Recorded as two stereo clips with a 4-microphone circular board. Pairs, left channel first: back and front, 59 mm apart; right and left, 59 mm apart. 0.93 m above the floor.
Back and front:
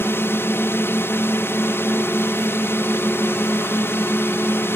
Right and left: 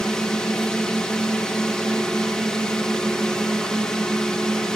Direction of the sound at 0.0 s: 165° right.